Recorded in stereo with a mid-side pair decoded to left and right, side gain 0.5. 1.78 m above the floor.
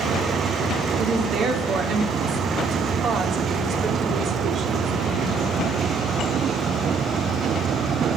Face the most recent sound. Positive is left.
turn(degrees=-65)